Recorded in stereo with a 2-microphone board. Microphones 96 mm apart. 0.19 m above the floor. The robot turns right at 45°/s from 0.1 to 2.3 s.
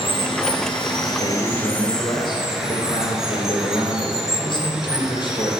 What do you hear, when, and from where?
0.0 s running water: 85° left, 1.5 m; by 5.6 s 175° right, 1.5 m
1.2 s a man speaking: 75° left, 3 m; by 5.5 s 125° left, 3 m